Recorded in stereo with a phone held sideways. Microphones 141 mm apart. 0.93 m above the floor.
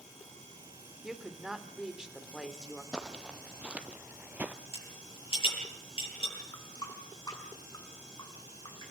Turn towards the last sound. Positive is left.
turn(degrees=25)  # may be behind; listen again after turning